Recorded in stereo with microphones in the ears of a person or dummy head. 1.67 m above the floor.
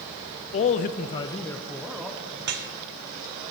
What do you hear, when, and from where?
0.5 s a man speaking: 40° left (ahead or behind), 0.5 m; by 2.3 s centre (ahead or behind), 1.0 m
2.4 s dripping: 50° right (ahead or behind), 0.9 m